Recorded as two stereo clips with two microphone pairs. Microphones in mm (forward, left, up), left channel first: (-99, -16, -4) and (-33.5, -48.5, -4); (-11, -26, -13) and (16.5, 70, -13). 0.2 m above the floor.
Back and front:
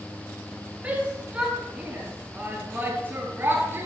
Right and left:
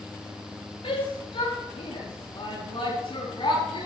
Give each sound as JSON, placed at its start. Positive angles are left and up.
{"t": 0.8, "sound": "a shout", "azimuth_deg": -95, "distance_m": 5.0}